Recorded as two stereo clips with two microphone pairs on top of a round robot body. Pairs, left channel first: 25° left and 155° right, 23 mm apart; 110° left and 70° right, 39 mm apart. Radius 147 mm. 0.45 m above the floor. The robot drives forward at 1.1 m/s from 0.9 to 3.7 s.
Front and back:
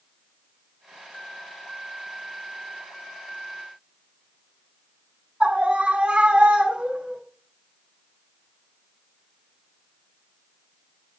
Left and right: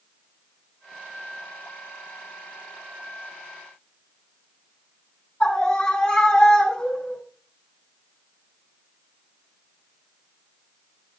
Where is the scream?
170° left, 4.5 m.